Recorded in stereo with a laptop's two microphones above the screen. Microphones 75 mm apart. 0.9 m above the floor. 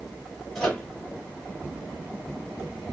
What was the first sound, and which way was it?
A microwave, 5° left (ahead or behind).